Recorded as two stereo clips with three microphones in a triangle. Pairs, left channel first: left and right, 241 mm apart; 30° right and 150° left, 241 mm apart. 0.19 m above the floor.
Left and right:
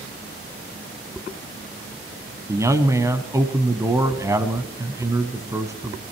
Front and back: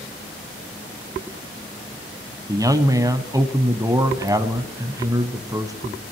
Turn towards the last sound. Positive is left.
turn(degrees=-150)